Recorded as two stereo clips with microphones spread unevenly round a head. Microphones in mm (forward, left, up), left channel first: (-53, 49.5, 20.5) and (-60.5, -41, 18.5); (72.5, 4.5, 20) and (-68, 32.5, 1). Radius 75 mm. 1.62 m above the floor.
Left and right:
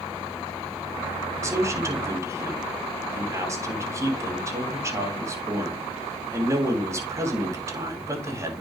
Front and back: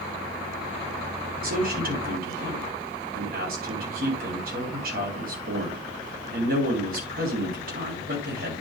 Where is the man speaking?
155° right, 3.5 m.